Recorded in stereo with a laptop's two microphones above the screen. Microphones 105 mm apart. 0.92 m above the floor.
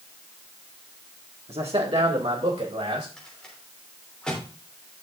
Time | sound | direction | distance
1.5 | a man speaking | 70° right (ahead or behind) | 1.8 m
3.2 | a rattle | 5° left (ahead or behind) | 3 m